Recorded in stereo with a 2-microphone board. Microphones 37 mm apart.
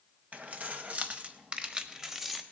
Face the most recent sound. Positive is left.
turn(degrees=-5)  # may be behind; listen again after turning